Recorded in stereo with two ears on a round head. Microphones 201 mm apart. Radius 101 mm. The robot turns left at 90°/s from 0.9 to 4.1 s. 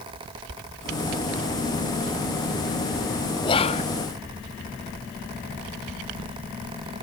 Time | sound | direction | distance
3.4 | whispering | 135° left | 0.5 m